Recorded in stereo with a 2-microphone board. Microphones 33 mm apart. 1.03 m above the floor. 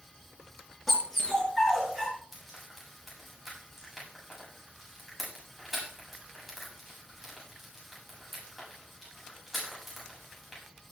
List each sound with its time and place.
0.9 s a dog barking: 10° right (ahead or behind), 6 m; by 2.1 s centre (ahead or behind), 6 m
2.3 s frying: 5° right (ahead or behind), 7 m